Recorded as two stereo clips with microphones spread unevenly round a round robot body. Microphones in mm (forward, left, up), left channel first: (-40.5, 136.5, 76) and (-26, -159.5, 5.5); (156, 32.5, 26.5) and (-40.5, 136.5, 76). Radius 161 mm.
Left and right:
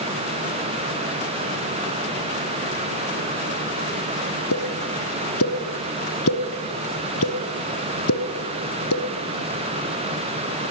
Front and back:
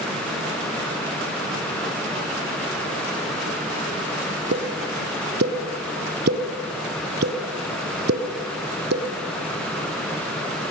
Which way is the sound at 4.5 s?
120° left.